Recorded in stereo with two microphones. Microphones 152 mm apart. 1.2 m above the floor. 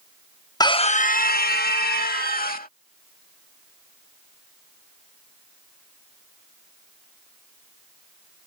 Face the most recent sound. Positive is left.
turn(degrees=65)  # may be behind; listen again after turning